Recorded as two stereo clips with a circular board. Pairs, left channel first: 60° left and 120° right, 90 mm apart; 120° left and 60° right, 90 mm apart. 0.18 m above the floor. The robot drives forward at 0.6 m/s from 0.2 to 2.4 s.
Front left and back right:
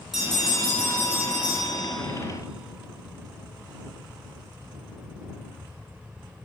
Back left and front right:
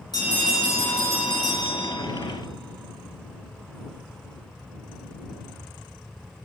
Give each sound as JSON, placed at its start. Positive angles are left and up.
{"t": 0.1, "sound": "a bell", "azimuth_deg": 155, "distance_m": 1.9}